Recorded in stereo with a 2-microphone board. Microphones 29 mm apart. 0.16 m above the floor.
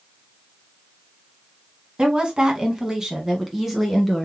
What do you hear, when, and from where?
2.0 s a woman speaking: 35° right (ahead or behind), 1.4 m; by 4.3 s centre (ahead or behind), 1.7 m